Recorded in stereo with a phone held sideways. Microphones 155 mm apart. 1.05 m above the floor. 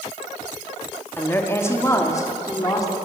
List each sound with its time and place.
1.2 s a woman speaking: 15° left (ahead or behind), 2.5 m; by 2.9 s 25° left (ahead or behind), 3.5 m